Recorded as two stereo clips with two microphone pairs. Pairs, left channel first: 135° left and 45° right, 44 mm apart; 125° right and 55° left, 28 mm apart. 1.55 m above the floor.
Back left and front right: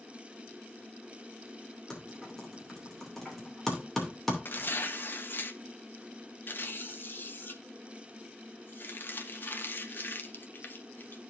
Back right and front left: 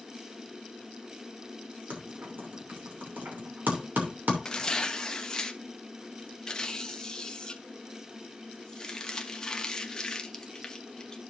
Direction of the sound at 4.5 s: 170° left.